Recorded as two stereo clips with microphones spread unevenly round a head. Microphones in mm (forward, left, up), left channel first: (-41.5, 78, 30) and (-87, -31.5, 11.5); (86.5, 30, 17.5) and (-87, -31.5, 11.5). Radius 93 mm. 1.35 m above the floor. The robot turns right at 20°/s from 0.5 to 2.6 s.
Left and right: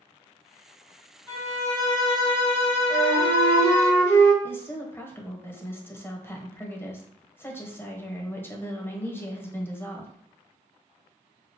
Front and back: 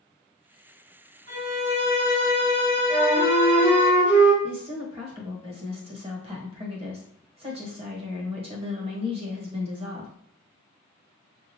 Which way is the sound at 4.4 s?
140° left.